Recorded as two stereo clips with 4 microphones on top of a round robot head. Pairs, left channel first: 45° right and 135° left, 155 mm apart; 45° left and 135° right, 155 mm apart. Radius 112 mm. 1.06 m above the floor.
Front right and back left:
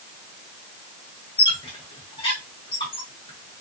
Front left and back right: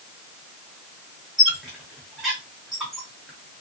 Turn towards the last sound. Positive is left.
turn(degrees=-50)